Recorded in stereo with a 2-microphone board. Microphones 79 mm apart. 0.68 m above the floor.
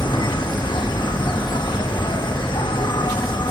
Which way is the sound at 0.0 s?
75° left (ahead or behind).